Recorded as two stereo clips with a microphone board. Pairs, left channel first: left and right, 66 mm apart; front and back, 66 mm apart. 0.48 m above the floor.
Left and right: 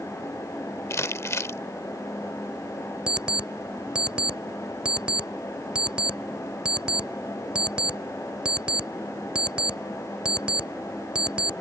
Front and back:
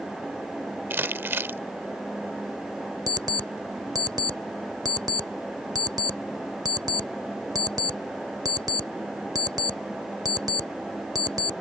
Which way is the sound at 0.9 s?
130° left.